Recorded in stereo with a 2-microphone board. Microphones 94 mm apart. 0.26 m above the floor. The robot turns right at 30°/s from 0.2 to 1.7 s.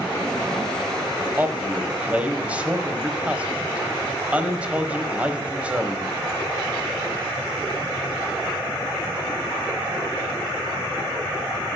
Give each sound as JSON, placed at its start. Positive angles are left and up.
{"t": 1.4, "sound": "a man speaking", "side_deg": -20, "distance_m": 1.0}